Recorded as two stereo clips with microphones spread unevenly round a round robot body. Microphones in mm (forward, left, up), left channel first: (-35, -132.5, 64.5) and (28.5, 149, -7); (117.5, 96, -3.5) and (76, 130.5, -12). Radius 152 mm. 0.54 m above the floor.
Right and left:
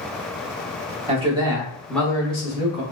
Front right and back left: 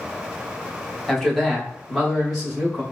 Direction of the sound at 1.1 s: 55° left.